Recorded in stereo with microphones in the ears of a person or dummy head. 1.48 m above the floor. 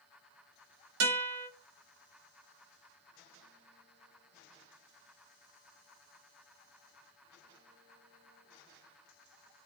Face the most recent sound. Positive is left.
turn(degrees=-85)